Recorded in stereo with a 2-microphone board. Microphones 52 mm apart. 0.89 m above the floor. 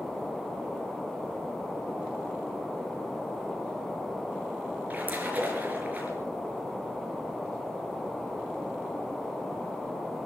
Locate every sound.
4.9 s a splash: 30° right (ahead or behind), 4 m